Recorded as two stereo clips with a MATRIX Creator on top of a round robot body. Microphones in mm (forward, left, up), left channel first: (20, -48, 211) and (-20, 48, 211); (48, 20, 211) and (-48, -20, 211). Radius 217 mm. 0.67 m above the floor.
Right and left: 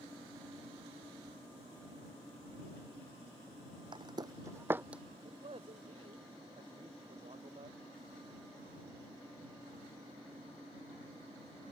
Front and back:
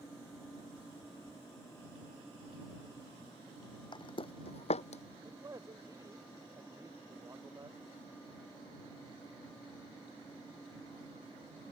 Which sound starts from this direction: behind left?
A man speaking, at 5.2 s.